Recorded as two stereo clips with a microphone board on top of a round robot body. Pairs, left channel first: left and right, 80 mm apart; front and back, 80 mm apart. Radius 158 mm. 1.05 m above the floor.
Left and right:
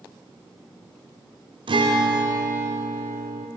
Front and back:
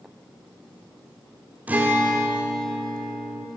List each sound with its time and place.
1.7 s a guitar: 110° right, 1.8 m